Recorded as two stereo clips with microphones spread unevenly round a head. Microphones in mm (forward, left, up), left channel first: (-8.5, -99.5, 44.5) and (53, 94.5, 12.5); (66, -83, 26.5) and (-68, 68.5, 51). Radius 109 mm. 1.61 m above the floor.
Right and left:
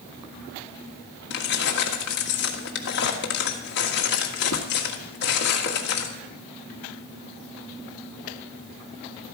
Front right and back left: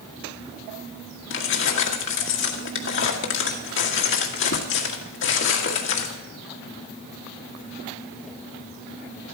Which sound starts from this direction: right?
Keys jangling, at 1.3 s.